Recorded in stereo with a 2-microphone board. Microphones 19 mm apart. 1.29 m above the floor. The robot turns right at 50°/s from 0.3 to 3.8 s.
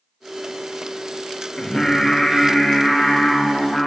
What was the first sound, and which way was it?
Singing, 20° left (ahead or behind).